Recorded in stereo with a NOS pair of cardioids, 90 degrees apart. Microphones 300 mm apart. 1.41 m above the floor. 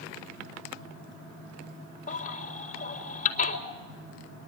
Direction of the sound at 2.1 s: 25° left.